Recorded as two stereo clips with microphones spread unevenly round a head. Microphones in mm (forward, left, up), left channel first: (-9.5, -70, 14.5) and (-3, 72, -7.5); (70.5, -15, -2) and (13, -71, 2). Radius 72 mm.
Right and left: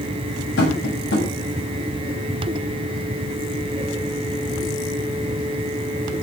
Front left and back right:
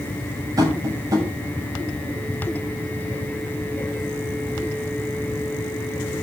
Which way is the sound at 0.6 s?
95° right.